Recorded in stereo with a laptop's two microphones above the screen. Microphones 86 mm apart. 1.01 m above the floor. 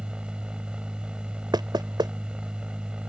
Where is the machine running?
10° right (ahead or behind).